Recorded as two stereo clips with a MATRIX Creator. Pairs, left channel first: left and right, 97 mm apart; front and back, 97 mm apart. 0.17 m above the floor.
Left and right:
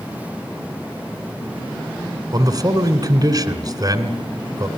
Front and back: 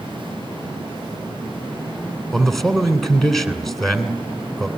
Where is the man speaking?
85° right, 2 m.